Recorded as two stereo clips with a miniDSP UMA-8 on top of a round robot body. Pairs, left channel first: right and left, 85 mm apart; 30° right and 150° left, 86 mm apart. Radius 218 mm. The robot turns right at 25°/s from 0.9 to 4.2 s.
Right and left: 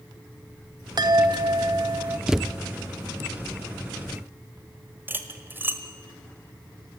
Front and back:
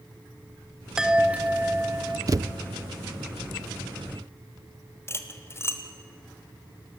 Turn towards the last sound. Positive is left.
turn(degrees=25)